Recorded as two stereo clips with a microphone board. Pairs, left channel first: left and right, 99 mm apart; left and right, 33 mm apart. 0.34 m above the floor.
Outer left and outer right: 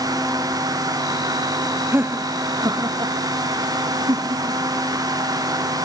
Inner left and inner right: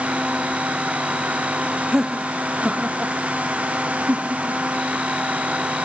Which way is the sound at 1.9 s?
20° right (ahead or behind).